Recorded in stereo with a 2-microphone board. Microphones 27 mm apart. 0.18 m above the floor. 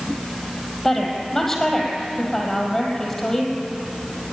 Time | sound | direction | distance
0.8 | a woman speaking | 10° left (ahead or behind) | 4.5 m